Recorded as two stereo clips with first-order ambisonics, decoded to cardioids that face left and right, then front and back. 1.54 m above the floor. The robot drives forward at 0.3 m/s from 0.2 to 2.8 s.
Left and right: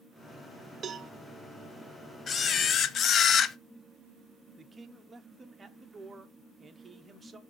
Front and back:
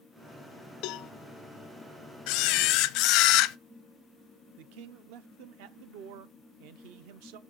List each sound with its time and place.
0.8 s a cowbell: 30° right, 0.6 m
2.3 s a camera shutter: 25° left, 0.6 m; by 3.6 s 30° left, 0.5 m
4.6 s a man speaking: 165° right, 0.9 m